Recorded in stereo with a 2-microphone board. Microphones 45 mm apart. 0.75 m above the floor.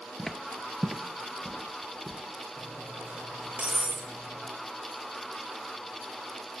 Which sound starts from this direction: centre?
Footsteps, at 0.2 s.